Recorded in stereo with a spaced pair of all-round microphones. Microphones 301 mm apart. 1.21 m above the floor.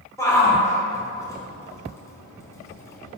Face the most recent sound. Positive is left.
turn(degrees=10)  # may be behind; listen again after turning